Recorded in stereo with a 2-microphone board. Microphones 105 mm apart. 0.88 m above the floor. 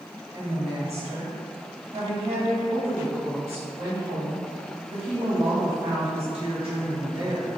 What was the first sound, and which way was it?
A woman speaking, 70° right (ahead or behind).